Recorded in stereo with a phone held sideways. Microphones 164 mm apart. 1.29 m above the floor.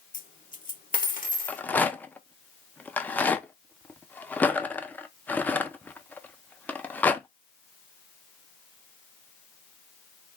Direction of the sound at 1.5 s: 10° left (ahead or behind).